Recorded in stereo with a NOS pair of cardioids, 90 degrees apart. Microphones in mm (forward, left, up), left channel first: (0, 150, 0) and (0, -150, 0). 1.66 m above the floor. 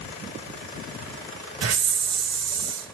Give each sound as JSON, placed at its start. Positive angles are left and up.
{"t": 1.6, "sound": "a hiss", "azimuth_deg": -55, "distance_m": 2.5}